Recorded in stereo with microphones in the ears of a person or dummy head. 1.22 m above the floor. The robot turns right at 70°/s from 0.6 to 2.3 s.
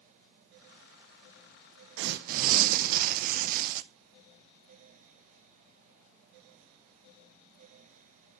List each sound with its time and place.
2.0 s tearing paper: 70° right (ahead or behind), 0.7 m; by 3.8 s 50° right (ahead or behind), 0.7 m